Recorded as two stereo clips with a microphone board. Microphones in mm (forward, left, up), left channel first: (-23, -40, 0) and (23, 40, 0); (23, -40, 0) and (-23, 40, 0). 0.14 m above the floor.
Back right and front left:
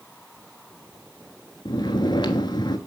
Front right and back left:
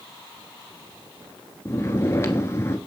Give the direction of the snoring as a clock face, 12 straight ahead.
4 o'clock.